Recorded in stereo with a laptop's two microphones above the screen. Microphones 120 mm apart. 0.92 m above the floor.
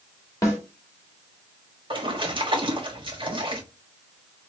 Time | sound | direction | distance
0.4 | a snare drum | 25° left (ahead or behind) | 1.4 m
1.9 | a splash | 40° right (ahead or behind) | 1.1 m